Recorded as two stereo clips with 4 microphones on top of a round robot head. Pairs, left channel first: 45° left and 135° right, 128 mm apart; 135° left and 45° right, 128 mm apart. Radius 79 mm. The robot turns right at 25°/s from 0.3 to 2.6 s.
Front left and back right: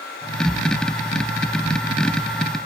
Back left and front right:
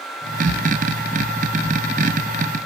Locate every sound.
Only background noise.